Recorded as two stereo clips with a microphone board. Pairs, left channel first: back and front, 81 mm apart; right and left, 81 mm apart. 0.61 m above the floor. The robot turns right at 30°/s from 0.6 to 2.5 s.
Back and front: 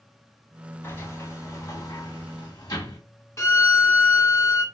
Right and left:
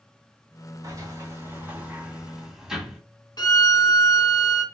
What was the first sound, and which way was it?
A sliding door, 120° left.